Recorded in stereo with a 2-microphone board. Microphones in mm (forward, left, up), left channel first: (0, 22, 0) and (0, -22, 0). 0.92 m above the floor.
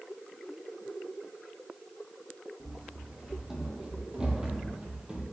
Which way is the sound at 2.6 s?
5° right (ahead or behind).